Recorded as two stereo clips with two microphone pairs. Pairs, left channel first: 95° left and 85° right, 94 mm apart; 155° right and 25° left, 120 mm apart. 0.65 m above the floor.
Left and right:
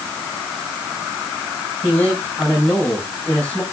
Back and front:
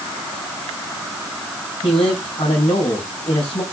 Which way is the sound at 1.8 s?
170° left.